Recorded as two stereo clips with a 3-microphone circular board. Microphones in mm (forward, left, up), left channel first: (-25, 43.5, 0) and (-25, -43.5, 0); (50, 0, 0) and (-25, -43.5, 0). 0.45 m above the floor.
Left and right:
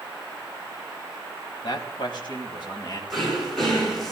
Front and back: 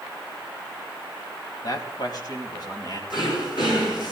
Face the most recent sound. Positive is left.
turn(degrees=0)